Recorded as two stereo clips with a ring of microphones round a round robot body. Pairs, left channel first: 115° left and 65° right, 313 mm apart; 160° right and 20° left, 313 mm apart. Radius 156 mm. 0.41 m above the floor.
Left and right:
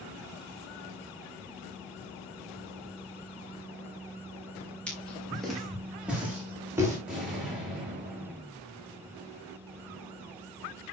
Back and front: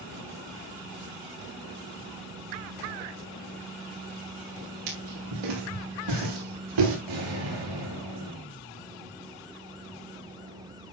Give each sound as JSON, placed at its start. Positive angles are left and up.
{"t": 4.9, "sound": "footsteps", "azimuth_deg": 25, "distance_m": 8.5}
{"t": 7.1, "sound": "an explosion", "azimuth_deg": 20, "distance_m": 8.0}